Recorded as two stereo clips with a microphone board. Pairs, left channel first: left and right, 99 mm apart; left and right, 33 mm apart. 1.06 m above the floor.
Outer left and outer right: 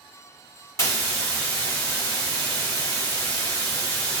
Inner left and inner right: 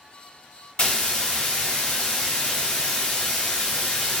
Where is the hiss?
35° left (ahead or behind), 1.3 m.